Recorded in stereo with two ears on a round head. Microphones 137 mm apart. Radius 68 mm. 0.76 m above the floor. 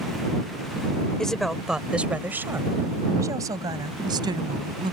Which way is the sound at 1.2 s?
5° left (ahead or behind).